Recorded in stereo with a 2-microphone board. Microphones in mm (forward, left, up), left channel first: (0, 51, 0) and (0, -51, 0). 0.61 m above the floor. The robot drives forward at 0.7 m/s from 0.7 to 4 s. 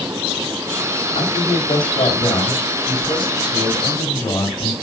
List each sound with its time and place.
1.1 s a man speaking: 65° left (ahead or behind), 2.5 m; by 4.7 s 40° left (ahead or behind), 3.5 m